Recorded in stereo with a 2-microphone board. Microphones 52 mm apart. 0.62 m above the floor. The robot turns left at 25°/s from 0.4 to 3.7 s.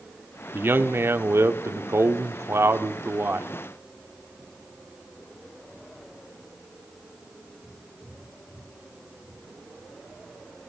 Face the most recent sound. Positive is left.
turn(degrees=-130)